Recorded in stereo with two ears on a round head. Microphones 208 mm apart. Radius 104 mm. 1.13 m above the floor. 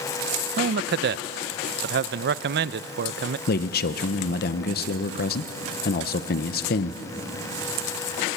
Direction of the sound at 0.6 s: 45° right (ahead or behind).